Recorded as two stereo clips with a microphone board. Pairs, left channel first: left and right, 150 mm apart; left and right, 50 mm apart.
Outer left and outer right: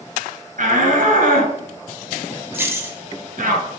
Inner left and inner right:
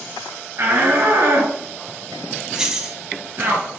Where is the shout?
60° right (ahead or behind), 2.5 m.